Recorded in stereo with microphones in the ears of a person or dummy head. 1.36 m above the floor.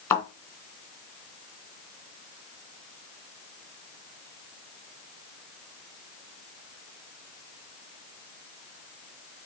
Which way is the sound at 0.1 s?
10° left (ahead or behind).